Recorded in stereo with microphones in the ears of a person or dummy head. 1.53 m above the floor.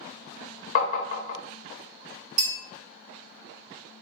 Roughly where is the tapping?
Left.